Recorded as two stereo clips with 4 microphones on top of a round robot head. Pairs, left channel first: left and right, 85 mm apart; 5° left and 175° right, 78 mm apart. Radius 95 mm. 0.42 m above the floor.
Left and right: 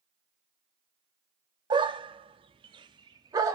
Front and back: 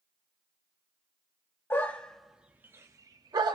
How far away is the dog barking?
About 0.7 m.